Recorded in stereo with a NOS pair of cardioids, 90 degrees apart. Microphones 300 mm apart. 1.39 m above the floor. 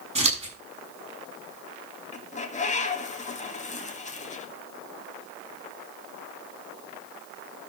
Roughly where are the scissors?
Ahead.